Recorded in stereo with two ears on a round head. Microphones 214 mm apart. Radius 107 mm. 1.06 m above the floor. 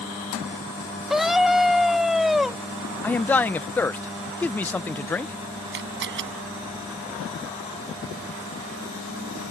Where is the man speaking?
5° left (ahead or behind).